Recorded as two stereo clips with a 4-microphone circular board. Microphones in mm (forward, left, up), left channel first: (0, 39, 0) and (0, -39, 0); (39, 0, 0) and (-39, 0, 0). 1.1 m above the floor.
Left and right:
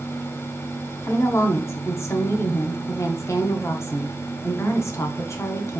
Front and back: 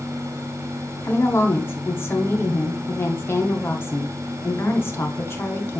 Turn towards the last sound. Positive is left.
turn(degrees=50)